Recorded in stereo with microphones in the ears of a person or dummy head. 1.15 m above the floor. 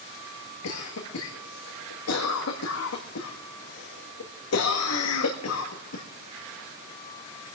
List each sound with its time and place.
0.6 s a cough: 80° left, 1.6 m